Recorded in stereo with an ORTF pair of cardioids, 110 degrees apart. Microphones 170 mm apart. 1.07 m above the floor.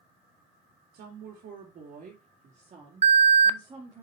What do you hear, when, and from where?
0.9 s a woman speaking: 70° right, 2.5 m; by 4.0 s 20° right, 2.5 m
3.0 s an alarm: 40° right, 0.7 m